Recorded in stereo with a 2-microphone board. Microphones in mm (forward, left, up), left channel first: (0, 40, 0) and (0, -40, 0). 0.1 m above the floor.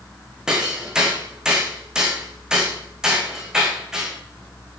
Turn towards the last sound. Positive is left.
turn(degrees=-10)  # may be behind; listen again after turning